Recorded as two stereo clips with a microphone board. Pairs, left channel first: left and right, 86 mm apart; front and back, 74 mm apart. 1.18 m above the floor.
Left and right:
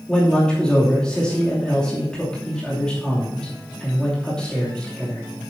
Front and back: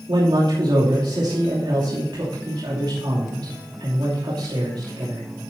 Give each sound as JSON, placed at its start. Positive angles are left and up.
{"t": 0.1, "sound": "a man speaking", "azimuth_deg": 170, "distance_m": 2.5}